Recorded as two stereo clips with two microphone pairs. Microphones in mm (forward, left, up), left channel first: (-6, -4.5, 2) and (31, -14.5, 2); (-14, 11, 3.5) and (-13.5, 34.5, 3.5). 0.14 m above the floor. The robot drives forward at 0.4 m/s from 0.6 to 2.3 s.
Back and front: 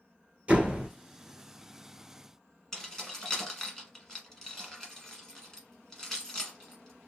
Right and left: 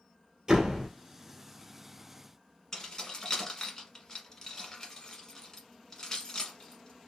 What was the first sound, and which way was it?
A door slam, 30° left.